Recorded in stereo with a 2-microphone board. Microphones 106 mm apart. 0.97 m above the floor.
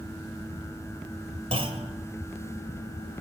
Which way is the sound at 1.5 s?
65° right (ahead or behind).